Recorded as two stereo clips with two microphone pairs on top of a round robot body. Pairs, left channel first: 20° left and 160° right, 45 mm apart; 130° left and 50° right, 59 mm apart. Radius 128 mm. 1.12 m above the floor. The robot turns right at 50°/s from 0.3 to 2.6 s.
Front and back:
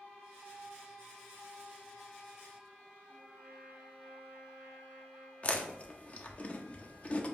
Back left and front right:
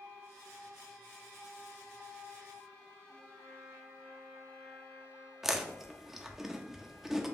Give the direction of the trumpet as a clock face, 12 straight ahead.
9 o'clock.